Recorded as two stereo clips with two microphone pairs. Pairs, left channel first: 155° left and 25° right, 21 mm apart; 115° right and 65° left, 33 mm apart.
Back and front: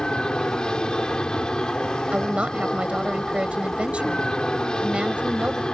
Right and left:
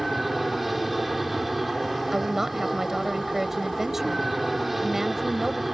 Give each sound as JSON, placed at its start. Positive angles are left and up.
{"t": 0.0, "sound": "an aircraft", "azimuth_deg": 150}
{"t": 2.1, "sound": "a woman speaking", "azimuth_deg": -10}